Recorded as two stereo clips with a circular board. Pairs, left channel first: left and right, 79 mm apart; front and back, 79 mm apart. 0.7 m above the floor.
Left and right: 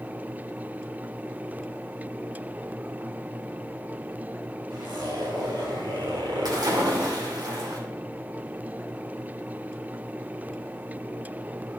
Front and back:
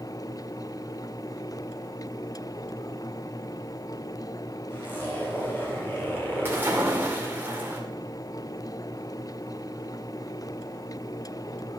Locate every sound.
4.7 s a zipper: 65° right, 4.5 m
6.5 s a splash: 115° right, 2 m